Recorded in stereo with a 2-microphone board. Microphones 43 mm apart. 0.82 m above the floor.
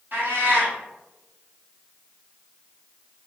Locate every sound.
0.1 s a cat meowing: 55° right (ahead or behind), 1.3 m